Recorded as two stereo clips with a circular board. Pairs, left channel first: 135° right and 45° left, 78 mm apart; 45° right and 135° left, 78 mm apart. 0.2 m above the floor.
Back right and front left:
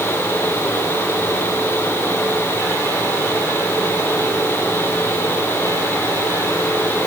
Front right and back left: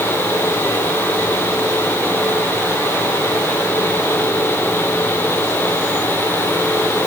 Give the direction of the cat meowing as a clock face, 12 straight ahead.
No cat meowing in this recording.